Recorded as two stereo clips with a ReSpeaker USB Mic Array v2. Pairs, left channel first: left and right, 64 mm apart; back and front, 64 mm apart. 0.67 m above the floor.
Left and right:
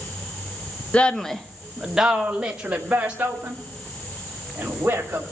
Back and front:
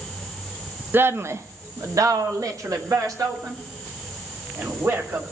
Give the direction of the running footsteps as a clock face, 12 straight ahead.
I don't hear running footsteps.